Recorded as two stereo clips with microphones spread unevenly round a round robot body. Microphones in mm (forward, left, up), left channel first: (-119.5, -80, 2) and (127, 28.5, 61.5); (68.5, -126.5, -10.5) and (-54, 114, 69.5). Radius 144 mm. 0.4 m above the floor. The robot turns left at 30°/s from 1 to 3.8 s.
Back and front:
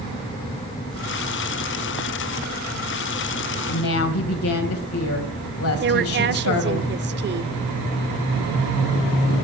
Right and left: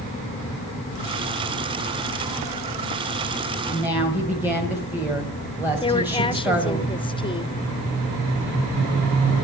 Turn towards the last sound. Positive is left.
turn(degrees=-25)